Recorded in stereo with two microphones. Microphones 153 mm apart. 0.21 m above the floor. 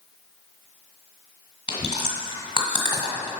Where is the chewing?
30° left (ahead or behind), 1.5 m.